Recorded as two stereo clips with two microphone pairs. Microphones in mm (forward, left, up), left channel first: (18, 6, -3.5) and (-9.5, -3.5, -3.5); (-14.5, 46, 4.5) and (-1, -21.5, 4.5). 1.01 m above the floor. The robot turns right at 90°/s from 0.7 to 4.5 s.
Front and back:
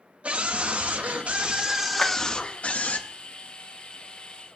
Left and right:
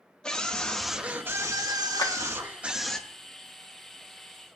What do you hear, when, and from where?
0.2 s a scream: 175° left, 1.6 m; by 3.0 s 20° left, 1.6 m
2.0 s a clap: 90° left, 1.4 m; by 2.1 s 100° left, 1.4 m